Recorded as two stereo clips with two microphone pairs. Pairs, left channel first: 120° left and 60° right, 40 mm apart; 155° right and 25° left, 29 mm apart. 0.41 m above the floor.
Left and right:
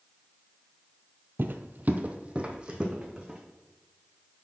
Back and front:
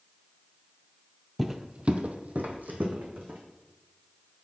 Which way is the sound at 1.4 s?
60° right.